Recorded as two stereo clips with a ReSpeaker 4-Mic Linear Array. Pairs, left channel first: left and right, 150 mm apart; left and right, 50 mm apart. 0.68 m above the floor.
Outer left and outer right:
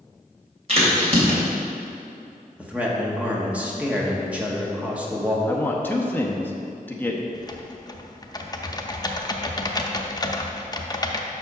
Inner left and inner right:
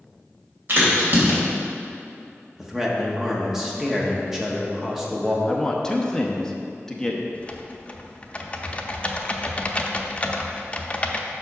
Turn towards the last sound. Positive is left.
turn(degrees=25)  # may be behind; listen again after turning